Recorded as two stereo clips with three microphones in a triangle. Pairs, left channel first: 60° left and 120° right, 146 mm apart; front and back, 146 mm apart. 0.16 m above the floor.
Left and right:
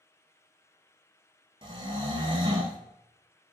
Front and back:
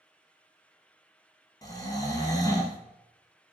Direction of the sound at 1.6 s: 65° right.